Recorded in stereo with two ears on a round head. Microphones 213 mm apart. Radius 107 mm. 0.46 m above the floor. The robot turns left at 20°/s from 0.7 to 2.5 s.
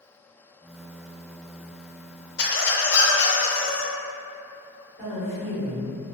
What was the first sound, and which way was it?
A squeak, 45° left (ahead or behind).